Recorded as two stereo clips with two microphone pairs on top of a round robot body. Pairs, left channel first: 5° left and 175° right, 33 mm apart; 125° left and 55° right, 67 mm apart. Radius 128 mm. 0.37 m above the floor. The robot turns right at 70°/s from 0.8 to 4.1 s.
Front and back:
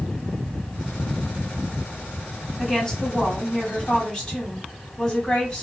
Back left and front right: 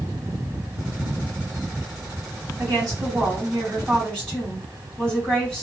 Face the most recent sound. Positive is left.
turn(degrees=55)